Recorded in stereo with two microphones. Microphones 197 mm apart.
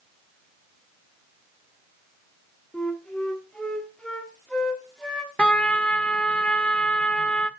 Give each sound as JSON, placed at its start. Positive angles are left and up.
{"t": 2.7, "sound": "a flute", "side_deg": 5, "distance_m": 1.6}
{"t": 5.4, "sound": "a trumpet", "side_deg": 5, "distance_m": 0.6}